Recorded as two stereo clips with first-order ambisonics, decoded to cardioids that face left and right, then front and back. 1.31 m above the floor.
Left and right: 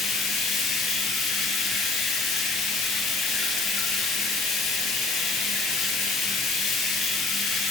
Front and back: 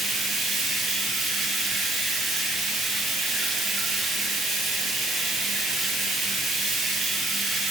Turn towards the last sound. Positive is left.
turn(degrees=120)